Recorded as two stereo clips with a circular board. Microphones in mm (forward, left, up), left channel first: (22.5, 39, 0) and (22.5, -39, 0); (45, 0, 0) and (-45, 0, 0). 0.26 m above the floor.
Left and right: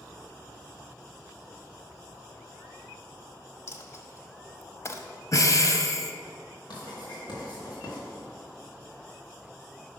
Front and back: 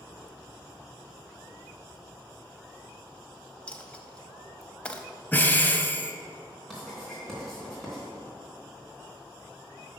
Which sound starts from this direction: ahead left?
Breathing, at 5.3 s.